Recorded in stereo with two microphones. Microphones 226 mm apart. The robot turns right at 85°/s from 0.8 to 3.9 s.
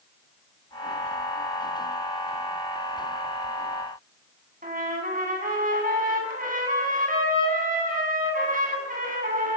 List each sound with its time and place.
4.6 s a trumpet: 35° right (ahead or behind), 8 m